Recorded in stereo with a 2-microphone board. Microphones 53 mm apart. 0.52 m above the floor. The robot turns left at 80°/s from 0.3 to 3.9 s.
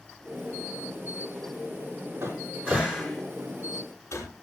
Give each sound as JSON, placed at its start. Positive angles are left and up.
{"t": 2.2, "sound": "a cupboard door", "side_deg": -65, "distance_m": 5.0}